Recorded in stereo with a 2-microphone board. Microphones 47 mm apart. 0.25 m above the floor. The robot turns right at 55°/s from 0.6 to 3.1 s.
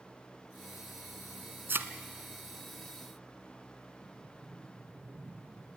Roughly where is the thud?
Right.